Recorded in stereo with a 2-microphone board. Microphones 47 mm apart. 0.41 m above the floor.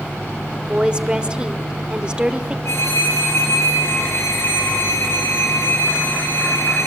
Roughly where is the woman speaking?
Centre.